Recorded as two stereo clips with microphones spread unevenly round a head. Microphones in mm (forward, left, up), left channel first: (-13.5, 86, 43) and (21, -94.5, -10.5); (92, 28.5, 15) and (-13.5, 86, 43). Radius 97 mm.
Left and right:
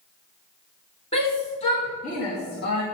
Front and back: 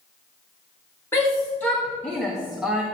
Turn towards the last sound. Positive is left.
turn(degrees=60)